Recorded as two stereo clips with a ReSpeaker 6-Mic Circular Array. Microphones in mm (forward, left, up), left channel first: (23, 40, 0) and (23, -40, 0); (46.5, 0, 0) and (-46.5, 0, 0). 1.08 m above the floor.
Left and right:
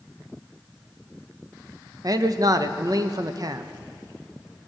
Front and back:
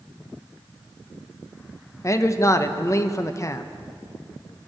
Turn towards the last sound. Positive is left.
turn(degrees=-55)